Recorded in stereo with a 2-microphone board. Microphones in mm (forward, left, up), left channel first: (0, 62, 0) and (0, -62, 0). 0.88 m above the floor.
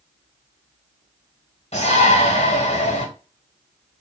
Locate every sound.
1.7 s a shout: 55° left (ahead or behind), 1.3 m